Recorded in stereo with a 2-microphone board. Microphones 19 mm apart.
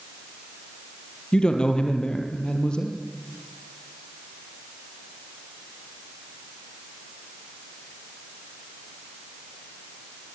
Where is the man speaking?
50° left (ahead or behind), 3 m.